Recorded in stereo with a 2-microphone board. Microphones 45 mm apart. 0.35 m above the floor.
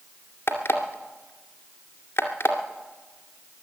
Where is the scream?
No scream in this recording.